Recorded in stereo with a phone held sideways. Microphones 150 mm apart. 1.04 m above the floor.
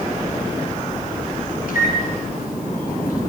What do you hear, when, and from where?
1.7 s a microwave: 80° left, 9.5 m